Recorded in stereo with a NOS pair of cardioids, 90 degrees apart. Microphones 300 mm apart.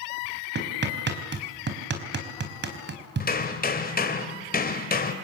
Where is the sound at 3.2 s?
30° left, 3 m.